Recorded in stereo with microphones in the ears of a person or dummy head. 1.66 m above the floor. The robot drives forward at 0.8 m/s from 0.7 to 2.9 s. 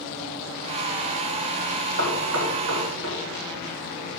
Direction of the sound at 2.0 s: 85° right.